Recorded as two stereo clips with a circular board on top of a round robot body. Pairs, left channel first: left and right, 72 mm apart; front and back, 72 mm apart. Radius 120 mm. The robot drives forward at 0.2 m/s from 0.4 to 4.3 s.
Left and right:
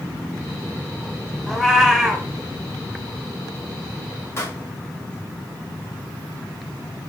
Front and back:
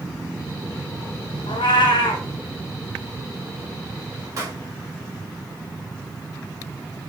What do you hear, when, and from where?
1.5 s a cat meowing: straight ahead, 1.0 m
4.4 s a pop: 140° left, 3 m